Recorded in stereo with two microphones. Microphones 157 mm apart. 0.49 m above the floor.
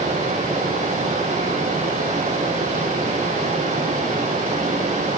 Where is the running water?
50° right (ahead or behind), 6 m.